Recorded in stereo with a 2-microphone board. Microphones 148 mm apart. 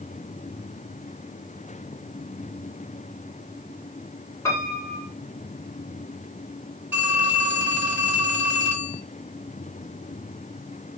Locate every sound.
4.5 s a piano: 20° left (ahead or behind), 3.5 m
6.9 s a phone ringing: 10° right (ahead or behind), 3.5 m